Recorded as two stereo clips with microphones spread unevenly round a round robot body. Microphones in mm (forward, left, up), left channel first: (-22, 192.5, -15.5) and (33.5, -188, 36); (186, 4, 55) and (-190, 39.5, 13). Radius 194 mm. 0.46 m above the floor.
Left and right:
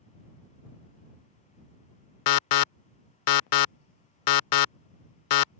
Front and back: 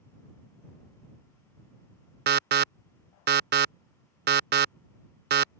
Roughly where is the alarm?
Behind left.